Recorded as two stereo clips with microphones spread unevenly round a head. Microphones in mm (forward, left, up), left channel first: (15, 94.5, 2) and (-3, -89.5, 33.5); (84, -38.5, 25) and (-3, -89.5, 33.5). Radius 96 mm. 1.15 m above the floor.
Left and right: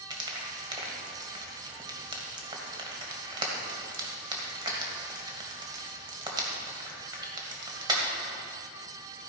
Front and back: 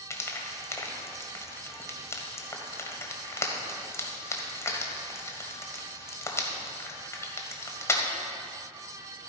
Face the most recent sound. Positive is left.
turn(degrees=-35)